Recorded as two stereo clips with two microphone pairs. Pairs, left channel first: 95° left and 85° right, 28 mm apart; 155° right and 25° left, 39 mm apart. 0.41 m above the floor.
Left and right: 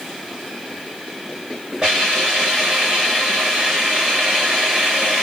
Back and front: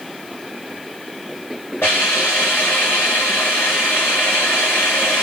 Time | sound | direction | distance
1.8 | a hiss | 140° right | 4 m